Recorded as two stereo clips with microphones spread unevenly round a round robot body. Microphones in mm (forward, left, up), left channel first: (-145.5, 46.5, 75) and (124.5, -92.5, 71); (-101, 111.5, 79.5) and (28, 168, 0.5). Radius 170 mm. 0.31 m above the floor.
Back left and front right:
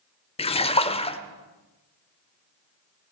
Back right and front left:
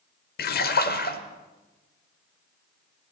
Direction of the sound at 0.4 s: 145° right.